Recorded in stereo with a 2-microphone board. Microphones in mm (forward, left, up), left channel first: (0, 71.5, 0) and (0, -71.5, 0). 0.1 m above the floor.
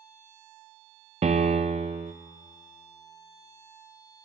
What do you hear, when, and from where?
1.2 s a piano: 55° right (ahead or behind), 0.6 m